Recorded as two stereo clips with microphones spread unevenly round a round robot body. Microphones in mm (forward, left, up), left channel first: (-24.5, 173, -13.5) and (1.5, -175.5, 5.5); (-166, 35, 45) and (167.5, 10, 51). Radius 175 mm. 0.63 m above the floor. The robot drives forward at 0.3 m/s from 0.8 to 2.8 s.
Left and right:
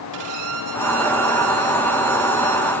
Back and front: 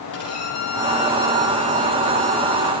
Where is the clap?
No clap in this recording.